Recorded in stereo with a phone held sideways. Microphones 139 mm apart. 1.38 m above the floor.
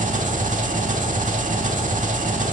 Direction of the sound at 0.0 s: 65° right (ahead or behind).